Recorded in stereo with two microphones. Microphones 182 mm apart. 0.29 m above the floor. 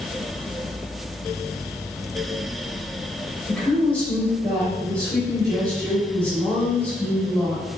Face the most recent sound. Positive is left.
turn(degrees=10)  # may be behind; listen again after turning